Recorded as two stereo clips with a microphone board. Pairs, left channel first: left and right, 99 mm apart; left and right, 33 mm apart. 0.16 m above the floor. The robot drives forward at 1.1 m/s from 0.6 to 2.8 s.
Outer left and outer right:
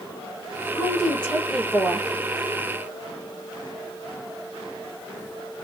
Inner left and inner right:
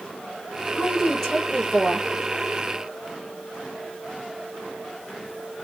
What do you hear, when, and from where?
0.8 s a woman speaking: 10° left (ahead or behind), 4.5 m; by 2.1 s 15° left (ahead or behind), 3 m